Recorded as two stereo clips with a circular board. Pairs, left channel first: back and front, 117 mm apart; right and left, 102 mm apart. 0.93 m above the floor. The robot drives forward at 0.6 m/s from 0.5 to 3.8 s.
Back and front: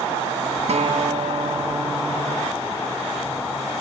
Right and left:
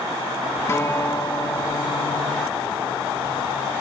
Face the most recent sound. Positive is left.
turn(degrees=-150)